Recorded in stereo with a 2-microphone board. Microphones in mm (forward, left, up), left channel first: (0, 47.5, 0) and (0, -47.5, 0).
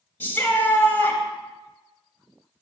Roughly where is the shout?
Left.